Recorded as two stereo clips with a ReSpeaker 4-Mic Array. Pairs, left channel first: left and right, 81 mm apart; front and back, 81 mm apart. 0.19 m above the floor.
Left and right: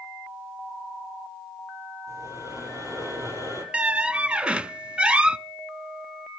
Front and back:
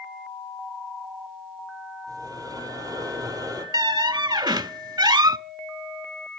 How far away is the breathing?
About 5 m.